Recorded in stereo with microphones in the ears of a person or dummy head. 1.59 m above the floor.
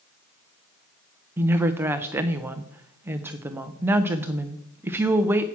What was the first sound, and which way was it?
A woman speaking, 10° right (ahead or behind).